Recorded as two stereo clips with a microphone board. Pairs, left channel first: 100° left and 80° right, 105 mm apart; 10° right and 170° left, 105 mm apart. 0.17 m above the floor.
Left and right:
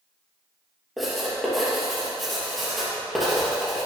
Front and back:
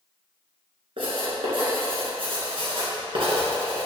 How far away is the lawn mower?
I don't hear a lawn mower.